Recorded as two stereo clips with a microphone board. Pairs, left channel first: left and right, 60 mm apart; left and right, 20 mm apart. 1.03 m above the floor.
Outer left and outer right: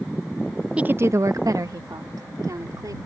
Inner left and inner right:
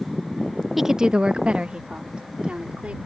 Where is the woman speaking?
15° right (ahead or behind); by 3.0 s 85° right.